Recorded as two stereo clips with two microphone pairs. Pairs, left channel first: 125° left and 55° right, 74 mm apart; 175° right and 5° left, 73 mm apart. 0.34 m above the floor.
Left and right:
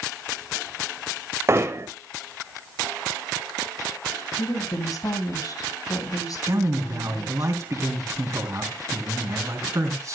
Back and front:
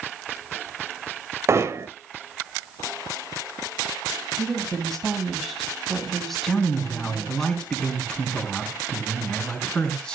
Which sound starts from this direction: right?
A man speaking, at 6.5 s.